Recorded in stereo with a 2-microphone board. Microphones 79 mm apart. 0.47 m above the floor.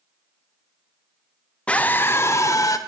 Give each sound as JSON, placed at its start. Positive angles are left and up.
{"t": 1.7, "sound": "a scream", "side_deg": 15, "distance_m": 0.8}